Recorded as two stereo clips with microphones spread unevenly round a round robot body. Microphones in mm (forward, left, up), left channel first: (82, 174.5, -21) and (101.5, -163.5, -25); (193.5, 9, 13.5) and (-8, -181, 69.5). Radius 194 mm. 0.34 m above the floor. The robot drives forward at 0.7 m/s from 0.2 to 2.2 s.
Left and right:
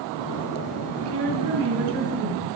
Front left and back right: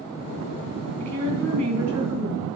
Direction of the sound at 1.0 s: 120° right.